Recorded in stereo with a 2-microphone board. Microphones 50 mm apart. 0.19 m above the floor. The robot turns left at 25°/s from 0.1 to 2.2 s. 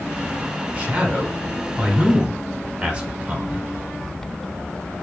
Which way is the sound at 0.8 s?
25° right (ahead or behind).